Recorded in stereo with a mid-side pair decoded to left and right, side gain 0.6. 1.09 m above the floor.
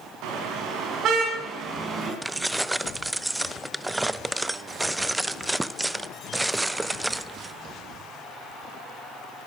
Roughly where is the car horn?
Ahead right.